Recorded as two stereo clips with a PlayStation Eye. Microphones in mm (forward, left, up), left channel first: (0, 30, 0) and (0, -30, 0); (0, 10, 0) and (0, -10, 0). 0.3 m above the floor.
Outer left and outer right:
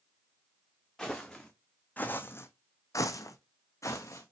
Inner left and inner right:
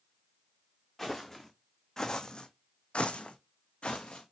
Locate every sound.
1.0 s footsteps: 5° left (ahead or behind), 1.1 m; by 4.3 s 50° left (ahead or behind), 1.1 m